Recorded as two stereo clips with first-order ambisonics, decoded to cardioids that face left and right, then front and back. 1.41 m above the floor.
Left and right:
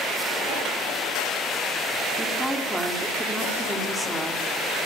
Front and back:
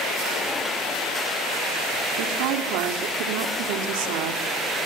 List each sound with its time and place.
2.1 s a woman speaking: 175° right, 3 m